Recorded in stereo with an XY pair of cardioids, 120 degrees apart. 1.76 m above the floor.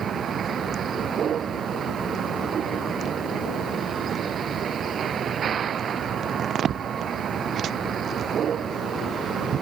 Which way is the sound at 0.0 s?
45° right.